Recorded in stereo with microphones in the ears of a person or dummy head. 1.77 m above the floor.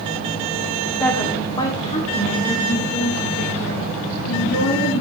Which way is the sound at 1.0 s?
10° left (ahead or behind).